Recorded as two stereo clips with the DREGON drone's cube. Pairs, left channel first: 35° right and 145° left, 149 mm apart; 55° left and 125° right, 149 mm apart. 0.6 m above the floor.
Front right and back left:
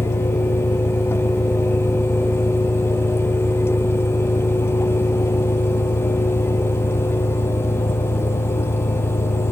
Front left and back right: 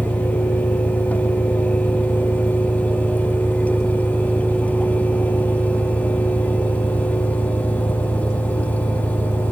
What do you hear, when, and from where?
0.0 s an engine running: 50° right